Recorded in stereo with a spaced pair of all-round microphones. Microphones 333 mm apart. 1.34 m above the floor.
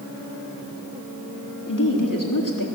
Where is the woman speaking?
70° left (ahead or behind), 3.5 m.